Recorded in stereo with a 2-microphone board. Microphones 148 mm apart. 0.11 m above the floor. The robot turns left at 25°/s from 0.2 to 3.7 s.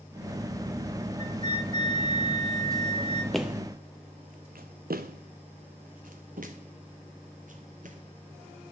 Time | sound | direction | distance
1.2 | a flute | 125° left | 1.6 m
3.3 | footsteps | centre (ahead or behind) | 0.6 m